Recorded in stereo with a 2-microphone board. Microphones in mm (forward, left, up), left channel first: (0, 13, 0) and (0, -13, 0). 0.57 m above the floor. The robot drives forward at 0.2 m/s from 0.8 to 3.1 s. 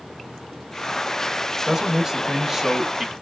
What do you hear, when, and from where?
1.7 s a man speaking: 15° right (ahead or behind), 0.7 m; by 3.1 s 20° right (ahead or behind), 0.6 m